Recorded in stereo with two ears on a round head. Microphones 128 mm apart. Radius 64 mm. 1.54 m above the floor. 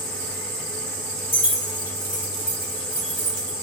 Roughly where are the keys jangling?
Left.